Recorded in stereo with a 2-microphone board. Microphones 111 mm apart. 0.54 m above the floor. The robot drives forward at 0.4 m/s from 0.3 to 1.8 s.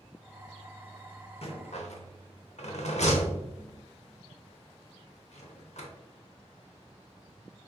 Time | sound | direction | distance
1.4 | a rattle | 60° left (ahead or behind) | 0.7 m